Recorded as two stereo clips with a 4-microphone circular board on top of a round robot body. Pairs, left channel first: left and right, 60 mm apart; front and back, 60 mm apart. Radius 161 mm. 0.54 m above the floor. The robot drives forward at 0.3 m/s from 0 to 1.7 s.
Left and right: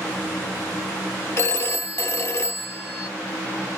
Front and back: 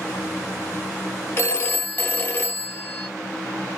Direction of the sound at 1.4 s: 50° left.